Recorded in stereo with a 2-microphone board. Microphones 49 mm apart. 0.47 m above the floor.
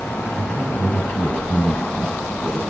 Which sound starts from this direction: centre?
A man speaking, at 0.3 s.